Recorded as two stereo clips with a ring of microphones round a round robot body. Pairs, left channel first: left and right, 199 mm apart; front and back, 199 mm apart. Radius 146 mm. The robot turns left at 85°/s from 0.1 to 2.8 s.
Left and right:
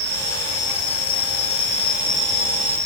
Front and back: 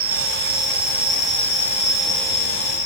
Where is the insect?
110° right, 3.5 m; by 2.9 s 20° left, 3.5 m.